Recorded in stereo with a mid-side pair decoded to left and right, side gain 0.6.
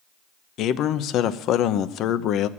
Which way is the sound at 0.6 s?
60° left.